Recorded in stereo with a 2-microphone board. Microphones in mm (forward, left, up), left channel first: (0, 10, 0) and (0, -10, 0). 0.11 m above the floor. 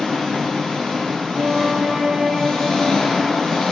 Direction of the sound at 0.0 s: 50° left (ahead or behind).